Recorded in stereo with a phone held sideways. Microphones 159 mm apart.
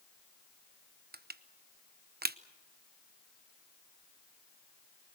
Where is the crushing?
85° right, 0.8 m.